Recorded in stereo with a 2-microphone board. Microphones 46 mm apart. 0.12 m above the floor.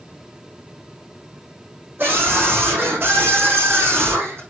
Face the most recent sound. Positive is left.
turn(degrees=-60)  # may be behind; listen again after turning